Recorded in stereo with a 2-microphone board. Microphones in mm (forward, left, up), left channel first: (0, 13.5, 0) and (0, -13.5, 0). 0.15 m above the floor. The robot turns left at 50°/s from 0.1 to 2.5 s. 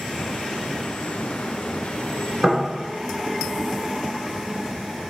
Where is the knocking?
10° right (ahead or behind), 1.1 m; by 2.6 s 5° right (ahead or behind), 1.1 m.